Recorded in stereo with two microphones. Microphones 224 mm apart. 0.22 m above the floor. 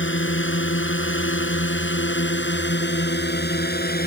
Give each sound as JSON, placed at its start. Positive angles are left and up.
{"t": 0.0, "sound": "a drone", "side_deg": 60}